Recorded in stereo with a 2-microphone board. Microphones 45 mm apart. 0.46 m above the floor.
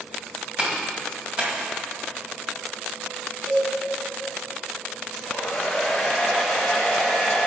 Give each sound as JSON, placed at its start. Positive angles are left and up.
{"t": 0.6, "sound": "a clap", "side_deg": -25, "distance_m": 2.5}
{"t": 3.5, "sound": "a cowbell", "side_deg": 10, "distance_m": 2.5}
{"t": 5.1, "sound": "a hair dryer", "side_deg": 5, "distance_m": 2.5}